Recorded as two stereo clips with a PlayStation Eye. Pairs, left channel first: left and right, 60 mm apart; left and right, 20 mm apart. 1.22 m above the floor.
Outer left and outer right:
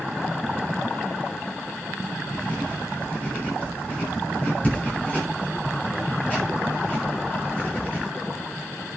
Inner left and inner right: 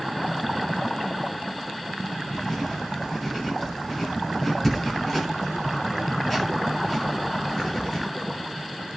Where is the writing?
20° left (ahead or behind), 6.5 m.